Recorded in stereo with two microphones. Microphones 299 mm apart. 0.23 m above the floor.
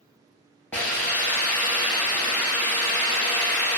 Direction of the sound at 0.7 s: 5° left (ahead or behind).